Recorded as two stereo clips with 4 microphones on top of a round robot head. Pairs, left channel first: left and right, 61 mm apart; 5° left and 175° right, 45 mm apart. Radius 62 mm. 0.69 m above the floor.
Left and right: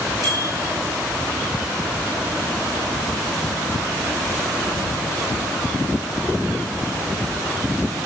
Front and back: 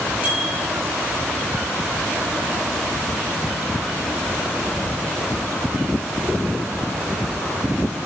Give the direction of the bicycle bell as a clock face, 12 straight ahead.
4 o'clock.